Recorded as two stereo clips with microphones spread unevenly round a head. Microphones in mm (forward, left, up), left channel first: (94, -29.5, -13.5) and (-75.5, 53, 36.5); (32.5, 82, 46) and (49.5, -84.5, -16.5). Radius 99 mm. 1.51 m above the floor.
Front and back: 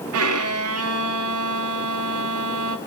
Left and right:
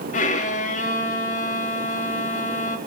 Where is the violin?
155° left, 0.8 m.